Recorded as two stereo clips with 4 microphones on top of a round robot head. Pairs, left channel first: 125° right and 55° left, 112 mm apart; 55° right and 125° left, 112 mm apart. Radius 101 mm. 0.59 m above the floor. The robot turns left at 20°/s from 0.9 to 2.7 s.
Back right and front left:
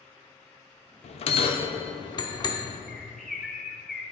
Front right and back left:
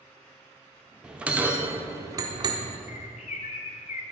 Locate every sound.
1.0 s a bell: 150° right, 0.7 m; by 2.8 s 175° left, 0.7 m
2.9 s a bird: 35° right, 0.6 m